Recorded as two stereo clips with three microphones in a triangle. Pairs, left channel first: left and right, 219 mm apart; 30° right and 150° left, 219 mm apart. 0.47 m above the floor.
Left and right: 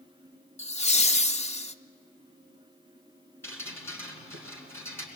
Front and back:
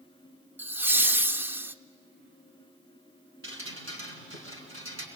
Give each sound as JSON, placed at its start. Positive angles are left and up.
{"t": 0.6, "sound": "laughter", "azimuth_deg": 80, "distance_m": 0.8}
{"t": 3.4, "sound": "dripping", "azimuth_deg": 170, "distance_m": 4.5}